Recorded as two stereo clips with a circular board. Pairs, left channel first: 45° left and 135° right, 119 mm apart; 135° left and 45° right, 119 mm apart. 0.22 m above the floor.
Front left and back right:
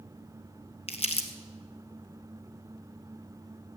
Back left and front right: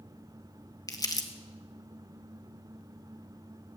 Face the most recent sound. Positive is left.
turn(degrees=75)